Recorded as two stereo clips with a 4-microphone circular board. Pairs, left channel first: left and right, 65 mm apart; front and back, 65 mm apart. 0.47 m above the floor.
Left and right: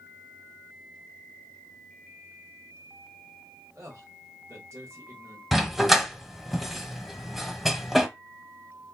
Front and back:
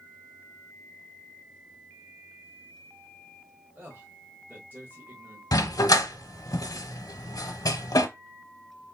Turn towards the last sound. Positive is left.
turn(degrees=0)